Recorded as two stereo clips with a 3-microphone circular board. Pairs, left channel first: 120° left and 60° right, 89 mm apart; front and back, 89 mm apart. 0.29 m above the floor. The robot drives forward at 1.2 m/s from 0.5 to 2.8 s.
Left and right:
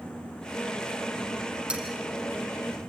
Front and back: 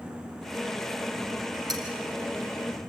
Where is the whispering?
I don't hear whispering.